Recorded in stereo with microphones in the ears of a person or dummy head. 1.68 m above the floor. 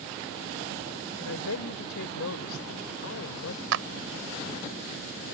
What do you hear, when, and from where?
1.2 s a woman speaking: 80° left
3.7 s a clap: 75° right (ahead or behind)